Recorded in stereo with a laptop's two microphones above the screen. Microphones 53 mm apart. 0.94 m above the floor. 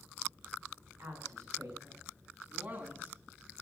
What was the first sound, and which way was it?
A woman speaking, 65° right (ahead or behind).